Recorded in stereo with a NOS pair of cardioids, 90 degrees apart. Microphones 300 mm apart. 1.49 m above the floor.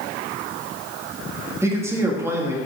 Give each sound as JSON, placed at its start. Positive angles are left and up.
{"t": 1.6, "sound": "a man speaking", "azimuth_deg": -10, "distance_m": 2.0}